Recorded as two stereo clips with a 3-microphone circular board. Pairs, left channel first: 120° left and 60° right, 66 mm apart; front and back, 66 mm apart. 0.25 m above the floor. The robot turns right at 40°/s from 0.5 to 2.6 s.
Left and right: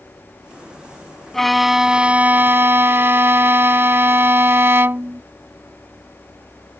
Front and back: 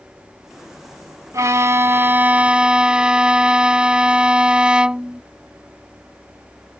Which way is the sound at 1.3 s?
155° right.